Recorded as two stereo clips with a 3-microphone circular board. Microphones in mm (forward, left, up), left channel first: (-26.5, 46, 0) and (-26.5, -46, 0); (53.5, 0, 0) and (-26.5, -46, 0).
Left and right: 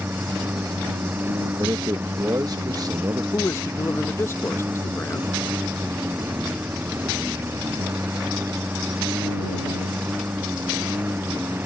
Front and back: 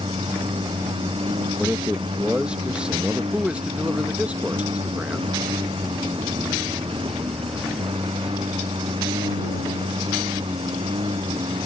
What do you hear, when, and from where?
0.0 s a lawn mower: 160° right
1.6 s a man speaking: 75° right
3.3 s a man speaking: 140° left